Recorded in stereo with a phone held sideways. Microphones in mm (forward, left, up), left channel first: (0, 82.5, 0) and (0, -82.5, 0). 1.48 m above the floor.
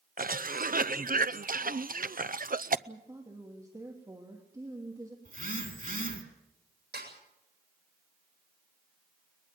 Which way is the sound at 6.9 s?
90° right.